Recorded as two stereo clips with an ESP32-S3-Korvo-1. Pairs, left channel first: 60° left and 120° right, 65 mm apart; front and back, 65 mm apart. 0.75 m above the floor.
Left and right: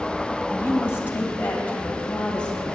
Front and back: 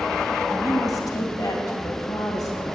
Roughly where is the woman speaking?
Ahead.